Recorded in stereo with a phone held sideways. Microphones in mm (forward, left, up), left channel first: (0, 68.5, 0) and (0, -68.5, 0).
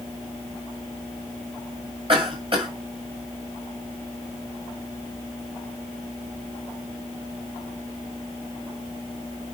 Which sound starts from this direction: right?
A cough, at 2.1 s.